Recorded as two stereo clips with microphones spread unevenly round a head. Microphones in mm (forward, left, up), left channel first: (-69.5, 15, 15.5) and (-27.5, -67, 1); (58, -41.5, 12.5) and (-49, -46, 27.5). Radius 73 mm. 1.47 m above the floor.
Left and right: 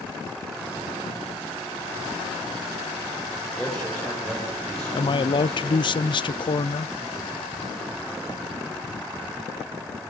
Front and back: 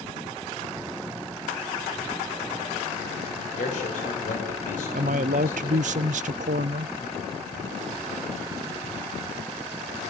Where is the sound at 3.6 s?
30° left, 7 m.